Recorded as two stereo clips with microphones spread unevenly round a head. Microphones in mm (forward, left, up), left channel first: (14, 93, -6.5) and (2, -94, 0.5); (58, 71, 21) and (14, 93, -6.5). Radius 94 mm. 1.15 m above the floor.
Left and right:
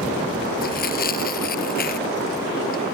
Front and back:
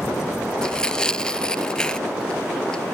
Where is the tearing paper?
45° left.